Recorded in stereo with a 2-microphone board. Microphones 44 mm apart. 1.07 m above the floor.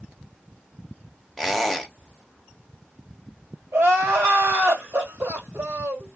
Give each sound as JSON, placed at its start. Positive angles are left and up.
{"t": 1.4, "sound": "a squeak", "side_deg": 0, "distance_m": 0.8}
{"t": 3.7, "sound": "crying", "side_deg": -65, "distance_m": 2.5}